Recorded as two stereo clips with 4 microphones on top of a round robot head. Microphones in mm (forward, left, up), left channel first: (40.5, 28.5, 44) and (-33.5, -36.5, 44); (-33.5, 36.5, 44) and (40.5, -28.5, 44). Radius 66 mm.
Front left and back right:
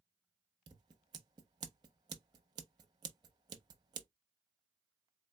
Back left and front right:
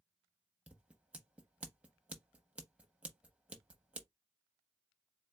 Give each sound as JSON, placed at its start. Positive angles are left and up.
{"t": 0.7, "sound": "scissors", "azimuth_deg": -115, "distance_m": 0.5}